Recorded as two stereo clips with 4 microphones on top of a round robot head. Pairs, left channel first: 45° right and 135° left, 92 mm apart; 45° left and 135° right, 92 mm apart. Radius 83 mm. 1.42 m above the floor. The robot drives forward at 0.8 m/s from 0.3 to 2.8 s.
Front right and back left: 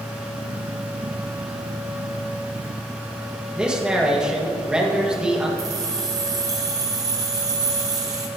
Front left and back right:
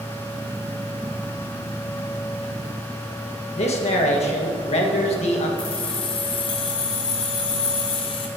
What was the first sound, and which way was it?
A man speaking, 55° left.